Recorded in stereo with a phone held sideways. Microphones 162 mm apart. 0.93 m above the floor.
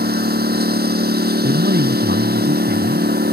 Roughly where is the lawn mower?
Right.